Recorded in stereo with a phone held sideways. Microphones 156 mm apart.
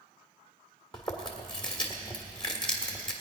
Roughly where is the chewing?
Left.